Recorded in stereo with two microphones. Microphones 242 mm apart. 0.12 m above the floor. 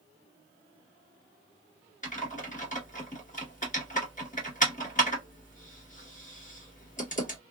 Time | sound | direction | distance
2.0 | typing on a keyboard | 30° left (ahead or behind) | 1.8 m